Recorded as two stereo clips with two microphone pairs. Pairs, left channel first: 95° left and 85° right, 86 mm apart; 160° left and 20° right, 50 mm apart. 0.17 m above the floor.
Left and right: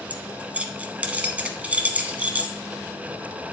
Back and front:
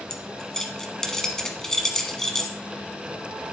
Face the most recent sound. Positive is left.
turn(degrees=-130)